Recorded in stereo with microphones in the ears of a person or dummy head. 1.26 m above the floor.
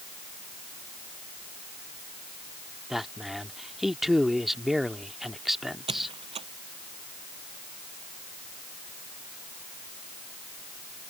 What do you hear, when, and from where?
2.9 s a man speaking: centre (ahead or behind)
5.9 s a squeak: 30° right (ahead or behind)